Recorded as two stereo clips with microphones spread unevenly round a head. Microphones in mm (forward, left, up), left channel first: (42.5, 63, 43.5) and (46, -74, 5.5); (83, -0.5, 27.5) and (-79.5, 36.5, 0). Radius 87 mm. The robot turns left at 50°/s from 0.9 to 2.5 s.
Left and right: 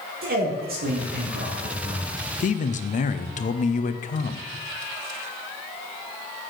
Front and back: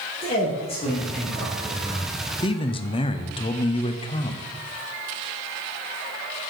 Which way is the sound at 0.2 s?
75° right.